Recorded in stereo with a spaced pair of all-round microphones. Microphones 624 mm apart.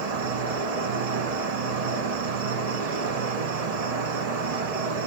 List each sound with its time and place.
0.0 s an insect: 75° right (ahead or behind), 0.8 m